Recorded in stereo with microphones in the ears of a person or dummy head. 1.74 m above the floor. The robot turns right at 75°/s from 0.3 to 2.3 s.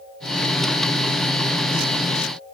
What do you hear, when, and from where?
Only background noise.